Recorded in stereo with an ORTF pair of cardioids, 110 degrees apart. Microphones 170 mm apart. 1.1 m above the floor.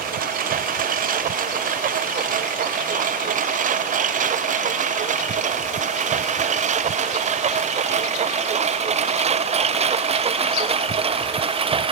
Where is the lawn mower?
55° right; by 11.9 s 30° right.